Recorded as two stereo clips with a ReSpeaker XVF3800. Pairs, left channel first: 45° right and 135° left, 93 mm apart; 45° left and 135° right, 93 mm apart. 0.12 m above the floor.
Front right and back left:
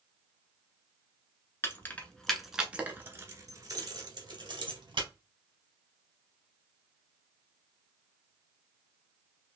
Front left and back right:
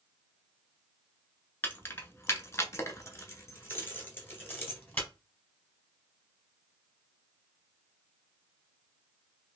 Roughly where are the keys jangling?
Ahead.